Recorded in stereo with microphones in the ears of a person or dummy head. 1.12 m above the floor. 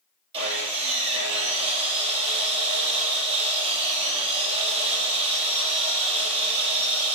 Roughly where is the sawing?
Right.